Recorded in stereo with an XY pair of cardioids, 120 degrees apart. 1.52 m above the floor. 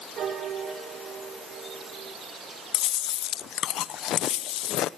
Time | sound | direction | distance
0.2 | a piano | 60° right | 3.5 m
2.7 | chewing | 65° left | 0.8 m